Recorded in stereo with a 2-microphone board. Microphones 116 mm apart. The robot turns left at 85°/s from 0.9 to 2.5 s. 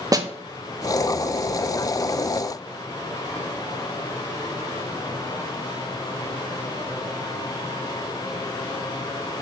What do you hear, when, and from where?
0.1 s a snare drum: 30° right (ahead or behind), 0.8 m